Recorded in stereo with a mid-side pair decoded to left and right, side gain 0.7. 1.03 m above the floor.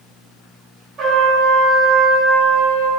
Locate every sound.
1.0 s a trumpet: 40° right, 0.6 m